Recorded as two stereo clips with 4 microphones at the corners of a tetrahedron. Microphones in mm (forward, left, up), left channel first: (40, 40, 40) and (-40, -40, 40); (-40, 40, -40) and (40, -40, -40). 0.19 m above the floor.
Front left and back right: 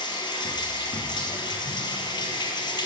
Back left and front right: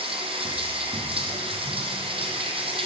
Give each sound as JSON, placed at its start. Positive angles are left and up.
{"t": 0.0, "sound": "running water", "azimuth_deg": -5, "distance_m": 1.1}